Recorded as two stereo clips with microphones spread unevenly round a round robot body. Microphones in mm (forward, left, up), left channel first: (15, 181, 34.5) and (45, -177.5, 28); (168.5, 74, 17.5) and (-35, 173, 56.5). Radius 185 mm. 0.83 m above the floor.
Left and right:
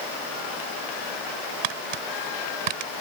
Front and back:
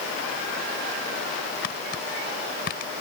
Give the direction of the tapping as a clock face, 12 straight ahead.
3 o'clock.